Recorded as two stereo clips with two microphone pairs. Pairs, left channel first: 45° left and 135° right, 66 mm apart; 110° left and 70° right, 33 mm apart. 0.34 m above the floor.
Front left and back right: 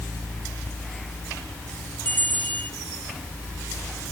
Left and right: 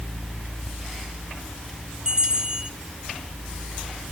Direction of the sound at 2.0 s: 10° right.